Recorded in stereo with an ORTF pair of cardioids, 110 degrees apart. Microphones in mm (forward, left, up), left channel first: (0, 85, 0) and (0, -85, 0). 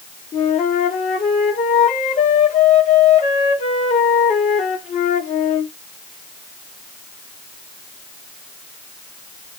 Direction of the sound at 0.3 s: 45° left.